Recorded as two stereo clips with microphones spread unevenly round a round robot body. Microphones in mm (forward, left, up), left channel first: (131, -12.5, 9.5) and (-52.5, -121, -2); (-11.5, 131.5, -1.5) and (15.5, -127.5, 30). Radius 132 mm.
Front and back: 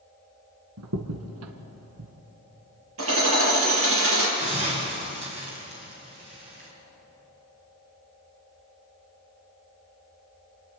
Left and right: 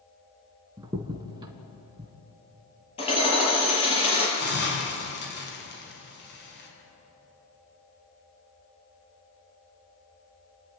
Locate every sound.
0.8 s a crack: 160° right, 1.6 m
3.0 s hammering: 165° left, 5.5 m
4.4 s a hiss: 145° left, 4.5 m